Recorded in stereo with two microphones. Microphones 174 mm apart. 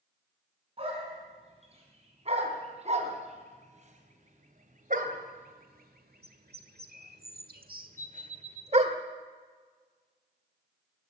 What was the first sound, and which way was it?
A dog barking, 35° right (ahead or behind).